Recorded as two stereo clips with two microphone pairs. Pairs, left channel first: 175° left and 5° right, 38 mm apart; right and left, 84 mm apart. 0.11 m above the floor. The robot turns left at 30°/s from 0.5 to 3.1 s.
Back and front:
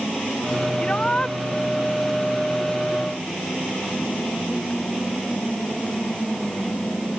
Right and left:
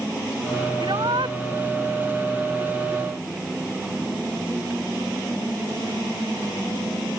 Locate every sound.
0.8 s a shout: 120° left; by 1.4 s 100° left